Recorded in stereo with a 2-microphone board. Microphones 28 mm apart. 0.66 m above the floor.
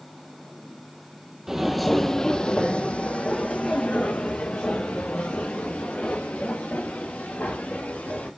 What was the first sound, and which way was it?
Footsteps, 20° right (ahead or behind).